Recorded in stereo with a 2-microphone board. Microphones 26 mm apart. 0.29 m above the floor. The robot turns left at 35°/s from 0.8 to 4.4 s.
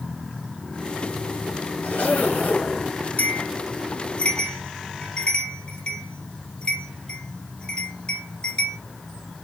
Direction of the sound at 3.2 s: 75° left (ahead or behind).